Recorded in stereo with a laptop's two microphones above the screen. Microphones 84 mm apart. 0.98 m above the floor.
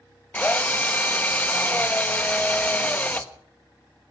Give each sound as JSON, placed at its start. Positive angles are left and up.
{"t": 0.3, "sound": "a drill", "side_deg": 20, "distance_m": 1.2}